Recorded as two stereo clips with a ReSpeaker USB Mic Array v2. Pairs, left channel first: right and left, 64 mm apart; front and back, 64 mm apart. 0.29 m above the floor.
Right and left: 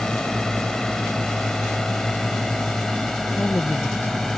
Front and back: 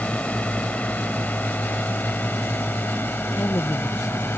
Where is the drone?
25° right; by 4.4 s 10° right.